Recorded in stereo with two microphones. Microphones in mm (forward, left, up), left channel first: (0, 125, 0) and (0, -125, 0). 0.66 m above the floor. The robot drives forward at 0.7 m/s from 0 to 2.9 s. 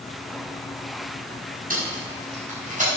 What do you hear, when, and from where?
1.7 s tape being pulled: 35° right (ahead or behind), 5 m; by 2.9 s 30° right (ahead or behind), 5.5 m